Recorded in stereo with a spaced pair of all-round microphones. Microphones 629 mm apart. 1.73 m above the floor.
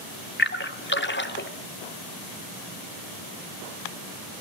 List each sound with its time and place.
0.4 s a splash: 15° left (ahead or behind), 1.5 m